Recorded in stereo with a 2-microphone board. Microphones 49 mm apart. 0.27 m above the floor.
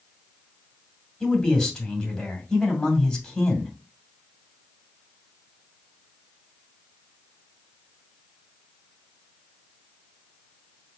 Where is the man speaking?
10° left (ahead or behind), 2.0 m.